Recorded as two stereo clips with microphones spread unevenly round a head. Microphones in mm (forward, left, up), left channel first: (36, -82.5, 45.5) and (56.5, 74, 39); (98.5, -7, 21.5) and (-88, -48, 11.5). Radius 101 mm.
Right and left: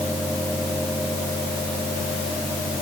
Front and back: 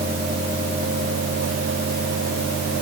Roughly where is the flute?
No flute in this recording.